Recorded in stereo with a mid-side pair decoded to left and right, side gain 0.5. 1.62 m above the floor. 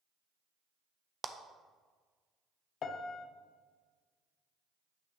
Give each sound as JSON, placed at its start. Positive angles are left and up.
{"t": 1.2, "sound": "a clap", "azimuth_deg": -30, "distance_m": 0.7}
{"t": 2.8, "sound": "a piano", "azimuth_deg": 55, "distance_m": 0.8}